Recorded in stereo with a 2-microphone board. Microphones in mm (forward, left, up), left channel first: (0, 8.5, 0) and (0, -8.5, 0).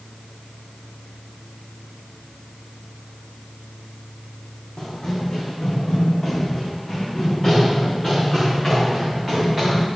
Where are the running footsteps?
35° left (ahead or behind), 3 m; by 9.9 s 20° right (ahead or behind), 5.5 m.